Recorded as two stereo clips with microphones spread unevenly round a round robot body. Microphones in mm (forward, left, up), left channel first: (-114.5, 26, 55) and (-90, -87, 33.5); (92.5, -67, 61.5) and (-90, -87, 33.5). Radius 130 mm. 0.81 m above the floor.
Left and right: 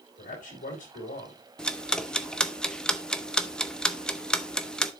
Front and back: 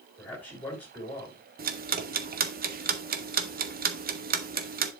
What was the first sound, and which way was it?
A man speaking, 90° left.